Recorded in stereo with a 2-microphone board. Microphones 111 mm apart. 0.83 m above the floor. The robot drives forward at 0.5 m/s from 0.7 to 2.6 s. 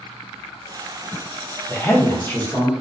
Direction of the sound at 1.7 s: 25° left (ahead or behind).